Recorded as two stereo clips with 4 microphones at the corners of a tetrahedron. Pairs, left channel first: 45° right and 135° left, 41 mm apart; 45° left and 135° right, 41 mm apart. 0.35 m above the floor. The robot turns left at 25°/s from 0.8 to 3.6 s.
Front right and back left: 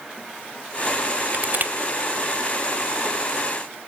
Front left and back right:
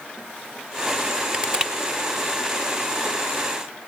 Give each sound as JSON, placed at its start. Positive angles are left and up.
{"t": 1.3, "sound": "crushing", "azimuth_deg": 170, "distance_m": 1.1}